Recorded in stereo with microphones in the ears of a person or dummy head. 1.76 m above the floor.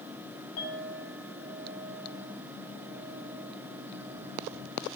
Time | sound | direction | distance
0.6 | a clink | 85° left | 7.5 m